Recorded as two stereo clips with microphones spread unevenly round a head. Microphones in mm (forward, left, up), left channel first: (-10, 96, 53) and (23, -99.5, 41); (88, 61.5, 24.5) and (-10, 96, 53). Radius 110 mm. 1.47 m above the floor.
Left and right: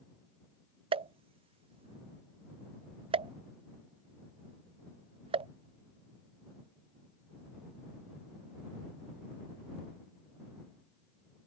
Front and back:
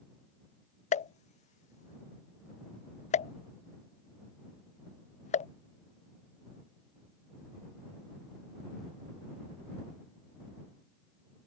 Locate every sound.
0.9 s a pop: 15° right